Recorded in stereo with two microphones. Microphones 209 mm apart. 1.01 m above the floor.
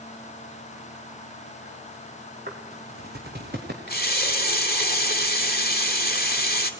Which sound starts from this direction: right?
Footsteps, at 2.5 s.